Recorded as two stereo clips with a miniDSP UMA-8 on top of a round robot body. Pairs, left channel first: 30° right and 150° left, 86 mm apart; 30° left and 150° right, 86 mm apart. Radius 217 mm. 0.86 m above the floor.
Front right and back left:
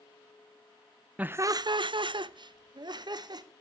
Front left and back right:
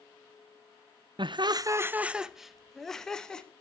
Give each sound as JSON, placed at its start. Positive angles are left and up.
{"t": 1.2, "sound": "laughter", "azimuth_deg": -140, "distance_m": 0.5}